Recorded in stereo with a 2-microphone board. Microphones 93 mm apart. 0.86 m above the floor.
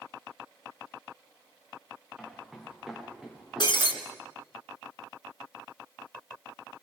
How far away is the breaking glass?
About 3.5 m.